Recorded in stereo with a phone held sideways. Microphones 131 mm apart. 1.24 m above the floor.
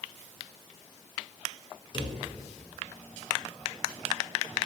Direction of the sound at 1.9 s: 35° left (ahead or behind).